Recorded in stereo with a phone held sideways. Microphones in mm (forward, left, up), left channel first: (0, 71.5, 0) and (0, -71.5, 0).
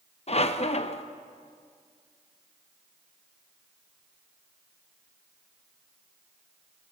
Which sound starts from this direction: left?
A squeak, at 0.3 s.